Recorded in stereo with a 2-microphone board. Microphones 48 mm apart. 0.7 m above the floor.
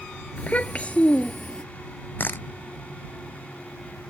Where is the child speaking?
30° left (ahead or behind); by 1.6 s 25° left (ahead or behind).